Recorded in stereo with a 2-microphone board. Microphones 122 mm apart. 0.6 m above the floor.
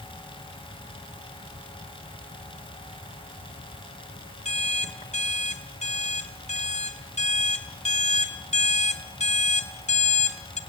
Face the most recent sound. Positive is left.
turn(degrees=65)  # may be behind; listen again after turning